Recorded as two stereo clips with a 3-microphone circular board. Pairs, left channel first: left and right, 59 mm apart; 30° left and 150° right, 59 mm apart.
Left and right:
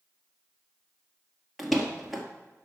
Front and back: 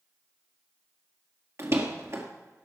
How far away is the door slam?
About 1.9 m.